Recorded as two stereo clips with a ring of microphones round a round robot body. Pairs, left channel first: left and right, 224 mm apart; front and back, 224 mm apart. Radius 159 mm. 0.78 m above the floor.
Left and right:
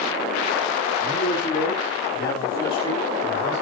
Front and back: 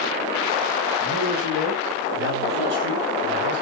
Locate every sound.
1.0 s a man speaking: 160° left, 7.5 m; by 3.6 s 140° left, 4.5 m